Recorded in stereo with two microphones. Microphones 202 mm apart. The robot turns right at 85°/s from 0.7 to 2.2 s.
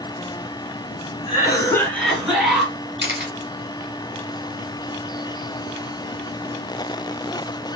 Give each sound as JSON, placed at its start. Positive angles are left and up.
{"t": 1.3, "sound": "a cough", "side_deg": 25, "distance_m": 1.1}
{"t": 3.0, "sound": "a camera shutter", "side_deg": 25, "distance_m": 0.9}